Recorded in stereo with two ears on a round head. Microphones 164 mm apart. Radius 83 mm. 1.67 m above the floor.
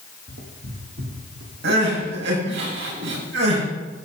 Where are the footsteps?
60° right (ahead or behind), 4.5 m; by 1.5 s 70° right (ahead or behind), 4.5 m.